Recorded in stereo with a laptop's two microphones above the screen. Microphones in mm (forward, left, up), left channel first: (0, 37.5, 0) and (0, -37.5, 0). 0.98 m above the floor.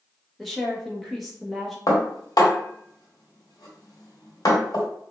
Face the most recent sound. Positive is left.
turn(degrees=60)  # may be behind; listen again after turning